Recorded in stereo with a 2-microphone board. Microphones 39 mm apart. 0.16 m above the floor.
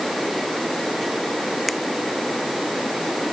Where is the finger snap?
Centre (ahead or behind).